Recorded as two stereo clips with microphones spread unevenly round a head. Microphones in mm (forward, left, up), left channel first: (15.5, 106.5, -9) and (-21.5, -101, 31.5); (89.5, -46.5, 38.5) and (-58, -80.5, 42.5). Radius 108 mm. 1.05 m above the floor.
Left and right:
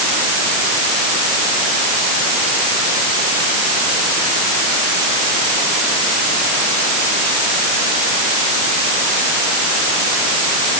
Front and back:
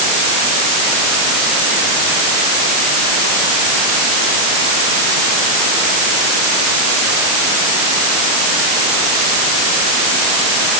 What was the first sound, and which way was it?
Only background noise.